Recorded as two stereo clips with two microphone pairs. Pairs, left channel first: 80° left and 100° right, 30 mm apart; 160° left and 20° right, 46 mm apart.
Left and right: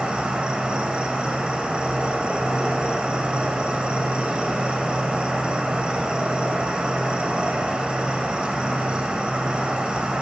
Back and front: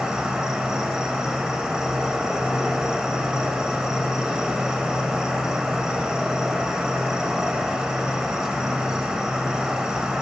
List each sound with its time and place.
0.0 s an insect: 90° right, 0.9 m